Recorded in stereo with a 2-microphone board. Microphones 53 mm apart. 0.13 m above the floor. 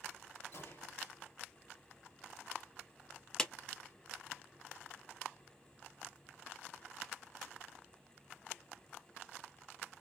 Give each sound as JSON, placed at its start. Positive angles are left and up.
{"t": 0.5, "sound": "a gunshot", "side_deg": 60, "distance_m": 3.5}
{"t": 3.4, "sound": "a clap", "side_deg": 10, "distance_m": 1.0}